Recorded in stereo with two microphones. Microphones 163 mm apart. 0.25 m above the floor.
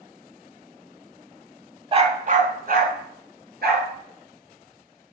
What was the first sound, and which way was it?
A dog barking, 35° right (ahead or behind).